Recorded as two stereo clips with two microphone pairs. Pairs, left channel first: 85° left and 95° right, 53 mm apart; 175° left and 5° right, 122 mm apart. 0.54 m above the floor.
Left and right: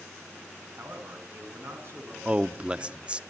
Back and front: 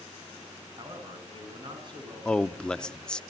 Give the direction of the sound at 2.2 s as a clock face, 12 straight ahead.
4 o'clock.